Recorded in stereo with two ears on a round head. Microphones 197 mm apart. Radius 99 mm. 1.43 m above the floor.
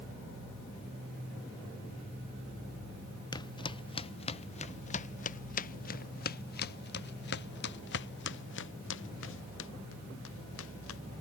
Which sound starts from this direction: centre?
Footsteps, at 3.3 s.